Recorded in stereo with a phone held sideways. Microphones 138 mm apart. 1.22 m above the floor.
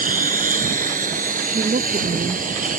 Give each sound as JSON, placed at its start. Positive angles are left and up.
{"t": 0.0, "sound": "a lawn mower", "side_deg": -80}
{"t": 1.5, "sound": "a woman speaking", "side_deg": -60}